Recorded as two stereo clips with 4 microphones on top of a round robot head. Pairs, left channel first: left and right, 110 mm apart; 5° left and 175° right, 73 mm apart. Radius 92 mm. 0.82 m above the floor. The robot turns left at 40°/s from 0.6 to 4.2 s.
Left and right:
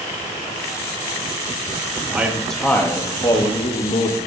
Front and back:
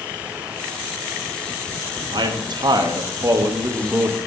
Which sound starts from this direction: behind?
A man speaking, at 2.1 s.